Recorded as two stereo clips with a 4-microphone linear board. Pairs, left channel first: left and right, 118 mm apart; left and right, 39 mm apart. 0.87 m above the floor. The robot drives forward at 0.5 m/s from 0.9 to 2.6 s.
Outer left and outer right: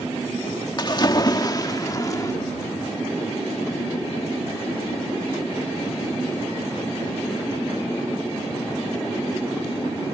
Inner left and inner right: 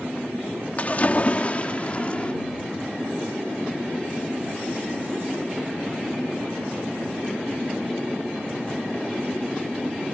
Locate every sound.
0.8 s a splash: 40° left (ahead or behind); by 2.3 s 30° left (ahead or behind)